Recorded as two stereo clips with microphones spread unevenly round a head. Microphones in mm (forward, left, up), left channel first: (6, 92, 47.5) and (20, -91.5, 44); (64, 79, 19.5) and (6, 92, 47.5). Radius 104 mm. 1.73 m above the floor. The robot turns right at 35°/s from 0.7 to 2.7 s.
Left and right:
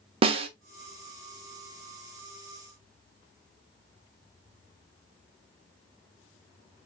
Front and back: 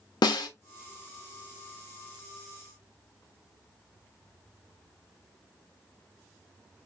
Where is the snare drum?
25° right, 0.5 m.